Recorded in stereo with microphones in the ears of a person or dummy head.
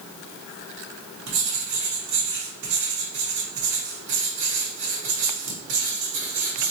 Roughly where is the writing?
Right.